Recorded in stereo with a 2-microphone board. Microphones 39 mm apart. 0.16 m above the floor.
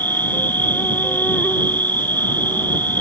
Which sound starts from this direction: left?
An insect, at 0.0 s.